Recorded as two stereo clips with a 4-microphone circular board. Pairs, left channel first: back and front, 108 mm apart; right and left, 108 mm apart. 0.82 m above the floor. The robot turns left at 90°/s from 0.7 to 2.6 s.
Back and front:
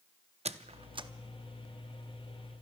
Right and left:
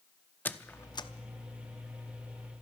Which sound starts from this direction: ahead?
A squeak, at 0.5 s.